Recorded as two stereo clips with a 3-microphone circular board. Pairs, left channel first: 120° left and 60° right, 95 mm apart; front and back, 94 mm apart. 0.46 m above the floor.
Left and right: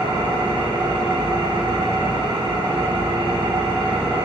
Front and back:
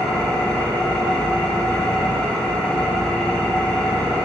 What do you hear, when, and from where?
0.0 s an engine running: 80° right, 2.5 m